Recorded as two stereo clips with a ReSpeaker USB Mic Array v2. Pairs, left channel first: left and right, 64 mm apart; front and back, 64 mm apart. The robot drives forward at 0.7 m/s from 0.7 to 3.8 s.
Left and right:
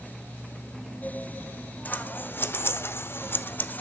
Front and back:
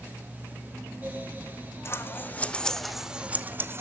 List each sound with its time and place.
1.9 s scissors: 35° left, 1.1 m; by 3.8 s 145° left, 1.0 m